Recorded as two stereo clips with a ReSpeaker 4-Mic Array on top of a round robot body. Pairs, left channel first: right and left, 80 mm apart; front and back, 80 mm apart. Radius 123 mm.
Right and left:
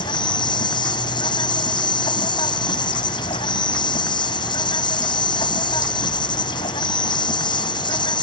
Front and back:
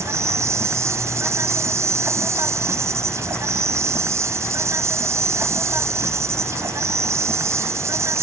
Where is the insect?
120° right.